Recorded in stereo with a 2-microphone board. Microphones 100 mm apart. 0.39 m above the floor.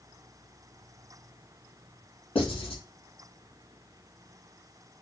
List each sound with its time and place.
2.4 s writing: 65° left (ahead or behind), 3 m